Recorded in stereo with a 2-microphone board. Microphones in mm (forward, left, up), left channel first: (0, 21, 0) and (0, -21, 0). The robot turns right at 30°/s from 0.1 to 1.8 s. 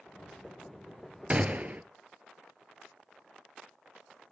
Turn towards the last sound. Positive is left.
turn(degrees=-40)  # may be behind; listen again after turning